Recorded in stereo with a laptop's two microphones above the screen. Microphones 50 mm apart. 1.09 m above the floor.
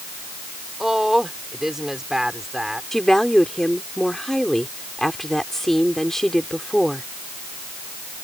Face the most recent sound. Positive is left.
turn(degrees=5)  # may be behind; listen again after turning